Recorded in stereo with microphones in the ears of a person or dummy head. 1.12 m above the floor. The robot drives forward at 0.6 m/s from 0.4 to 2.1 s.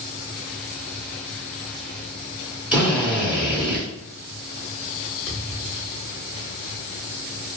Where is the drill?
5° right (ahead or behind), 1.3 m.